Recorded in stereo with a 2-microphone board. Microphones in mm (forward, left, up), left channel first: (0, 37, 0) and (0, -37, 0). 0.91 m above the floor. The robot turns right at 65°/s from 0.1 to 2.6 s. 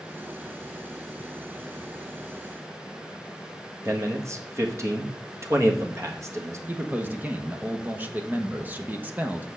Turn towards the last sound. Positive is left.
turn(degrees=-25)  # may be behind; listen again after turning